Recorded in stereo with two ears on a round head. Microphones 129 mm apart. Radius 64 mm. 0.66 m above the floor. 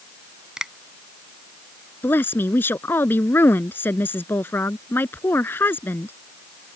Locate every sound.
0.6 s a finger snap: 5° right (ahead or behind)
2.0 s a woman speaking: 15° left (ahead or behind)